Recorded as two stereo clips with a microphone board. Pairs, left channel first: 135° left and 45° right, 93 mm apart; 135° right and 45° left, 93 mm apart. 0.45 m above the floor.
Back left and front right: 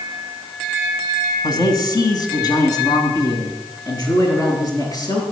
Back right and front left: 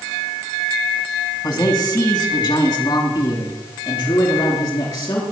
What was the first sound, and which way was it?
A man speaking, straight behind.